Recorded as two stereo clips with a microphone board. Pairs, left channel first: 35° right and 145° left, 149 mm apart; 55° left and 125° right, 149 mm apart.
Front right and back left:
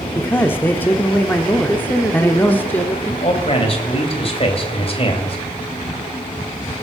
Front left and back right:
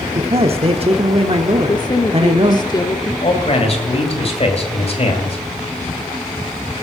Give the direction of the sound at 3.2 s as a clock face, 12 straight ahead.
12 o'clock.